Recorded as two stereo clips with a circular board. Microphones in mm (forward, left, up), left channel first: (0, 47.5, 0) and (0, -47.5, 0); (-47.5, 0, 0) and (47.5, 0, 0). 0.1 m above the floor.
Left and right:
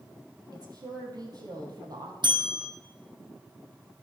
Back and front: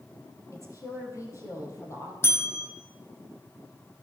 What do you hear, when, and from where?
0.5 s a woman speaking: 130° right, 3 m
2.2 s a bell: 120° right, 2 m